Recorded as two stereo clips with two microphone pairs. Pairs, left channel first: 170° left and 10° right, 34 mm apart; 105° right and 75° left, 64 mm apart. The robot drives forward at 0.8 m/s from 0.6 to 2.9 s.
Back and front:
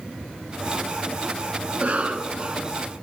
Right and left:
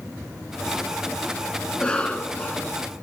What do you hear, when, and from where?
1.7 s a cough: 35° right, 1.7 m; by 2.7 s 70° right, 1.3 m